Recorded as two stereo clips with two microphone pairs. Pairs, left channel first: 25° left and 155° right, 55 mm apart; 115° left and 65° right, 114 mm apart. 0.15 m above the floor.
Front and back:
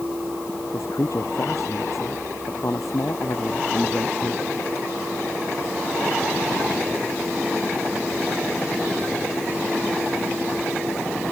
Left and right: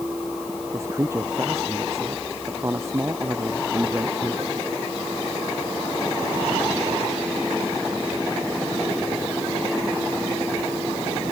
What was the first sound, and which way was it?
A man speaking, 5° left.